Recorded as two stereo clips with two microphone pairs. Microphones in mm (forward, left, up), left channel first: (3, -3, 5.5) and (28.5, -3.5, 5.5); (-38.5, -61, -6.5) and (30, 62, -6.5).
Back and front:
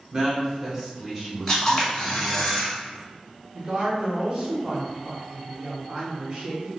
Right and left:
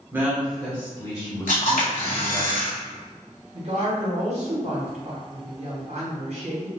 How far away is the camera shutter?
About 1.4 m.